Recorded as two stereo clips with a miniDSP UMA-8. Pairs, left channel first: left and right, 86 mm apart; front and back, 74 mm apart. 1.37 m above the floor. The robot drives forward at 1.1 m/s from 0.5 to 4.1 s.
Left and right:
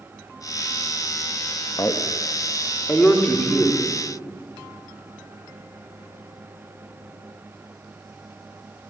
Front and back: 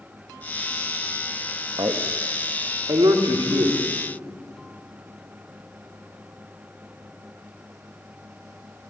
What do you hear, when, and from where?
1.8 s a man speaking: 145° left, 1.4 m; by 3.8 s 170° left, 3.5 m